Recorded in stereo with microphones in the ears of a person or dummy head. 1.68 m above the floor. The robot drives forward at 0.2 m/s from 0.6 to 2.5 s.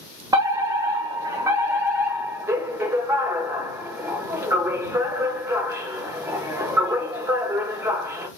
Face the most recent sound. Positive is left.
turn(degrees=-20)  # may be behind; listen again after turning